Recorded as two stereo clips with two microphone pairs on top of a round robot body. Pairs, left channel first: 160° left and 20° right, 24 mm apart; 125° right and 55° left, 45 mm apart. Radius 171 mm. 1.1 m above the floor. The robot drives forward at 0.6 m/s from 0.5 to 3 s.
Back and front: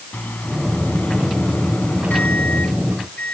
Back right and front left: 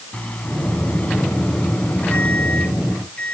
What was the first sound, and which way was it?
A microwave, 175° left.